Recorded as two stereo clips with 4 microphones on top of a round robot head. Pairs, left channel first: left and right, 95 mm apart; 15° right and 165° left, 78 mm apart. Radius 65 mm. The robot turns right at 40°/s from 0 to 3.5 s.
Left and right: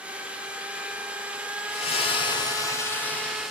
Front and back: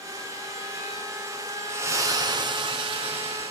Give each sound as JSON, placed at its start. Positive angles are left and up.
{"t": 1.7, "sound": "a splash", "azimuth_deg": 110, "distance_m": 1.1}